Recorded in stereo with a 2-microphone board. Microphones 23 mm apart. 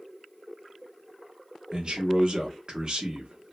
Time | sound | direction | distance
1.7 | a man speaking | 40° right (ahead or behind) | 0.7 m